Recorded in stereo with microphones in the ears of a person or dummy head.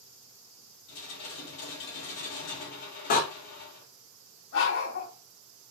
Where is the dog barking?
75° left (ahead or behind), 2 m.